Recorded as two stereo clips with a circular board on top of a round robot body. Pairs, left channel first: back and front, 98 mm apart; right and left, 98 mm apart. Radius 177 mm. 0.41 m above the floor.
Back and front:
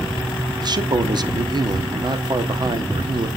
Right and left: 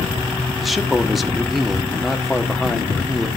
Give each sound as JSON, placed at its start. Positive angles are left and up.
{"t": 0.6, "sound": "a man speaking", "azimuth_deg": 0, "distance_m": 1.7}